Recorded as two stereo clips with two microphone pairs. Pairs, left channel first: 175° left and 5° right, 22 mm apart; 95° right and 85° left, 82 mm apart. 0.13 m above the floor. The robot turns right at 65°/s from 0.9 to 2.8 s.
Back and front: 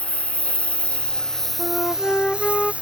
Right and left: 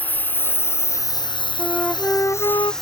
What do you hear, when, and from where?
0.0 s a lawn mower: 160° right; by 2.8 s 5° right
1.6 s a flute: 170° left; by 2.7 s 120° right